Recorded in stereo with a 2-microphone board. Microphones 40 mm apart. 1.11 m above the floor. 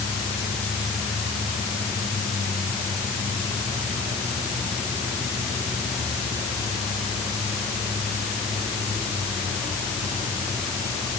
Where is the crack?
No crack in this recording.